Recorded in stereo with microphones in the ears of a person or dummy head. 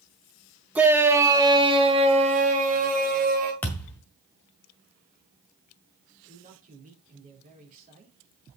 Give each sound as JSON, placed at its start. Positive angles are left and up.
{"t": 0.8, "sound": "a shout", "side_deg": -5, "distance_m": 2.0}
{"t": 3.6, "sound": "a thud", "side_deg": 10, "distance_m": 1.8}
{"t": 6.3, "sound": "a man speaking", "side_deg": -40, "distance_m": 4.0}